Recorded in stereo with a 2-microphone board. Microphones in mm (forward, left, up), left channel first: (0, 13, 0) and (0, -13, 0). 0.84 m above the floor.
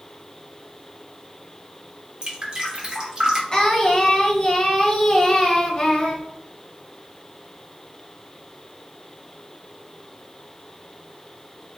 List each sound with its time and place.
2.2 s dripping: 30° right (ahead or behind), 0.9 m
3.5 s singing: 30° left (ahead or behind), 0.7 m